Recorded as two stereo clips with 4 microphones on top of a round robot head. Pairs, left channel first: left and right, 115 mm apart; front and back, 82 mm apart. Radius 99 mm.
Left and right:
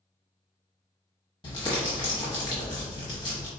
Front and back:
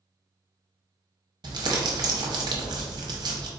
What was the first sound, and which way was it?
Crumpling, 150° left.